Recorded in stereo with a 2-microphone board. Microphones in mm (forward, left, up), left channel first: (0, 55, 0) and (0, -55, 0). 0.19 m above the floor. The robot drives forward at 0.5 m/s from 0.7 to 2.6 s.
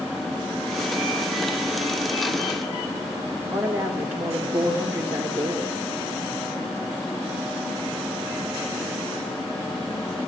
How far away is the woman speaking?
About 3 m.